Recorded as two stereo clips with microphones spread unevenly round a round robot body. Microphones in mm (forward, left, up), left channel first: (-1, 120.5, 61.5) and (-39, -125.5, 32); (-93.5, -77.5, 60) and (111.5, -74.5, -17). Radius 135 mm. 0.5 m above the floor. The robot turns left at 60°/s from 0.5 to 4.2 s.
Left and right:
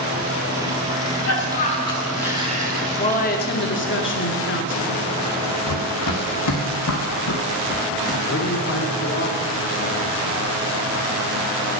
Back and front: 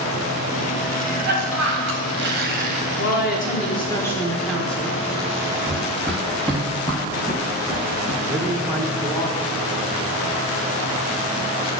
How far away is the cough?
About 2.5 m.